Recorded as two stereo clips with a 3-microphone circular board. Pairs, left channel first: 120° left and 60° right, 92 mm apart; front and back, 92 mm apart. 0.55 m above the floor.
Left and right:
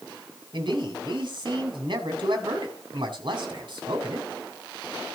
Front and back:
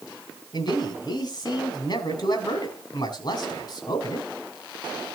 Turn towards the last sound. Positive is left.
turn(degrees=-30)